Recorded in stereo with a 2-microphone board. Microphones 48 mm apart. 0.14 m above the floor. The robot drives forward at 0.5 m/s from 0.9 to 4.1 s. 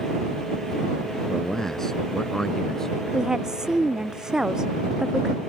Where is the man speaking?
5° left (ahead or behind); by 3.0 s 10° left (ahead or behind).